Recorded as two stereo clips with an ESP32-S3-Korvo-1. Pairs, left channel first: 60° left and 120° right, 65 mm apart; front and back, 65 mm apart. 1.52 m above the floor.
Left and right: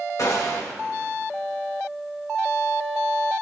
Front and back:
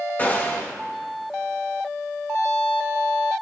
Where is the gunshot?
55° left, 2 m.